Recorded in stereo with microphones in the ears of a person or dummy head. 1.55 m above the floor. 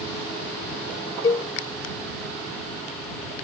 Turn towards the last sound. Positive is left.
turn(degrees=20)  # may be behind; listen again after turning